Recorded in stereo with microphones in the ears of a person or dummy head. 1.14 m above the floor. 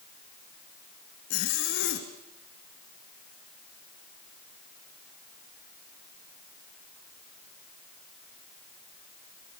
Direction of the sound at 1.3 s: 60° left (ahead or behind).